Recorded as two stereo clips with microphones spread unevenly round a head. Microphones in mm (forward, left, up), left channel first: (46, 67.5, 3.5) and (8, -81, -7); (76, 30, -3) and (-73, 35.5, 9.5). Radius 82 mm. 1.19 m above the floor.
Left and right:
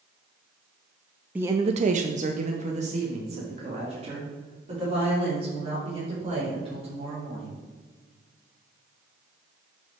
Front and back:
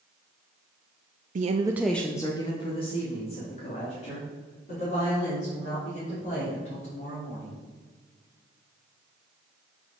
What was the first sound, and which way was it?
A woman speaking, straight behind.